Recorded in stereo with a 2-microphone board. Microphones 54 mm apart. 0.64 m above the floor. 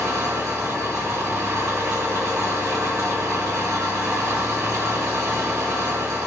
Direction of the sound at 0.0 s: 70° right (ahead or behind).